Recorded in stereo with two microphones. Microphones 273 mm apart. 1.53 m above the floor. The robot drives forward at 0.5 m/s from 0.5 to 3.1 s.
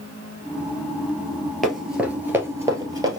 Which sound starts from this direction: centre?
Running footsteps, at 1.6 s.